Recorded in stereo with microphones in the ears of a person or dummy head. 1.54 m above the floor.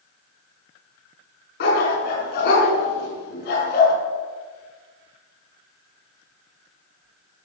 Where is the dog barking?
70° left (ahead or behind), 5 m.